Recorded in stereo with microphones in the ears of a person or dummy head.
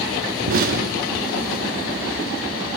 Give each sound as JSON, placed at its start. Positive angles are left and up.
{"t": 0.5, "sound": "an explosion", "side_deg": -50, "distance_m": 1.1}